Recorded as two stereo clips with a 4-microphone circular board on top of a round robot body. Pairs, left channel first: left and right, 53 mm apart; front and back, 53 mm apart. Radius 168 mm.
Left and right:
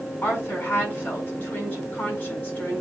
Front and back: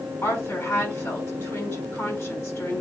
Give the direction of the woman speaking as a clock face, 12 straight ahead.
11 o'clock.